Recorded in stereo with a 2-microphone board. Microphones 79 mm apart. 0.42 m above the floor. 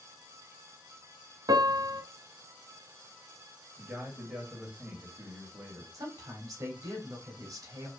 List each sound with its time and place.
1.5 s a piano: 60° right (ahead or behind), 0.7 m
3.8 s a man speaking: 10° right (ahead or behind), 2.5 m
5.9 s a woman speaking: 50° right (ahead or behind), 2.0 m